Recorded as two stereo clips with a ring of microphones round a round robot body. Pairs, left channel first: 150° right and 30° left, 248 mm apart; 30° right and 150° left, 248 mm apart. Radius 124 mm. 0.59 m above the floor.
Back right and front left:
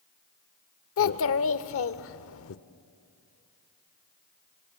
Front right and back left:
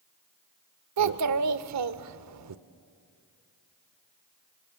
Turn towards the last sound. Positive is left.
turn(degrees=170)